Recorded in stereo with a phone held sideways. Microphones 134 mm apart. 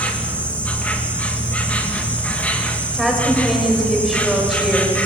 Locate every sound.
0.0 s an insect: 10° left (ahead or behind), 2.5 m
2.9 s a woman speaking: centre (ahead or behind), 6 m